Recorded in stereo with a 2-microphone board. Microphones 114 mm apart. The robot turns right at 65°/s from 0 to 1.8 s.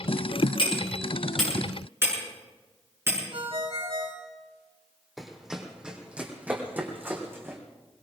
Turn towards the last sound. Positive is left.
turn(degrees=-25)  # may be behind; listen again after turning